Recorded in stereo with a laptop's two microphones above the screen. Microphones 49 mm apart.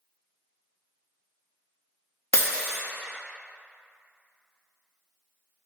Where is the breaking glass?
75° left (ahead or behind), 0.8 m.